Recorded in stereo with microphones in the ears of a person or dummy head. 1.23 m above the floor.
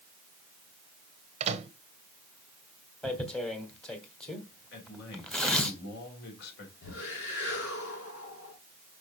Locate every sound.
1.4 s a microwave: 35° right (ahead or behind), 0.9 m
3.0 s tearing paper: 5° left (ahead or behind), 1.5 m
4.7 s a man speaking: 65° left (ahead or behind), 3.5 m
6.8 s a whoosh: 80° left, 6 m